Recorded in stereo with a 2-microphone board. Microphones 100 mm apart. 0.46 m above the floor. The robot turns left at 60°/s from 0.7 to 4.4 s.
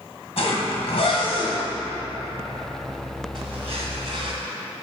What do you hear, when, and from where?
0.4 s a zipper: 75° left (ahead or behind), 1.9 m; by 4.3 s 60° right (ahead or behind), 1.9 m